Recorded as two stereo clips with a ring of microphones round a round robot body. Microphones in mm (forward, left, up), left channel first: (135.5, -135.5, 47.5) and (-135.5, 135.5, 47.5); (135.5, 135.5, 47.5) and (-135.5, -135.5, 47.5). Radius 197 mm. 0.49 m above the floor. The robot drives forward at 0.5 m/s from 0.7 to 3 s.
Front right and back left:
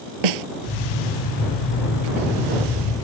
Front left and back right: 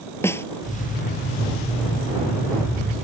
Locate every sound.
0.2 s a snare drum: 130° left